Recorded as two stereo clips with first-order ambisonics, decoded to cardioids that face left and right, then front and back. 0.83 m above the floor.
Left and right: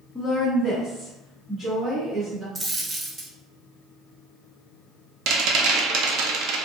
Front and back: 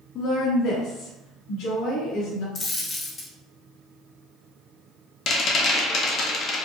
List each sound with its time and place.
0.1 s a woman speaking: straight ahead, 0.5 m; by 2.5 s 10° right, 2 m
2.5 s a dropped coin: 35° right, 0.5 m
5.3 s a rattle: 55° right, 0.5 m